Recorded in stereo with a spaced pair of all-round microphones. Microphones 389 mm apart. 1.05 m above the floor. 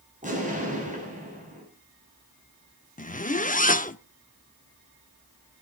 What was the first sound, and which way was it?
An explosion, 20° right (ahead or behind).